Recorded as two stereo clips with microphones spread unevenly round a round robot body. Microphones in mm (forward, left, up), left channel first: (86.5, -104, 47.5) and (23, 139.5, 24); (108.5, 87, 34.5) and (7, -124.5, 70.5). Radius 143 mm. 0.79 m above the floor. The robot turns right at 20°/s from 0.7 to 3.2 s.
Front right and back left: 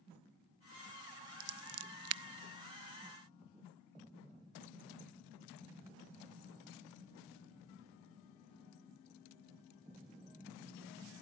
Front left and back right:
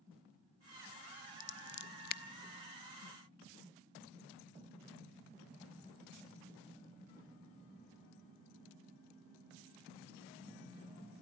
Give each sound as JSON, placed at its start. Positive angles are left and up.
{"t": 1.4, "sound": "scissors", "azimuth_deg": 90, "distance_m": 0.5}